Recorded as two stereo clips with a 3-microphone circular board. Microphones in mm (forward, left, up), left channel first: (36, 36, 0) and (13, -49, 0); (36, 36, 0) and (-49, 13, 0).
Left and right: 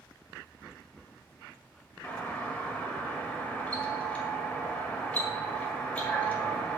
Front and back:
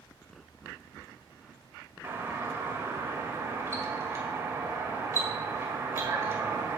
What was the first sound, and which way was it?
A doorbell, 145° left.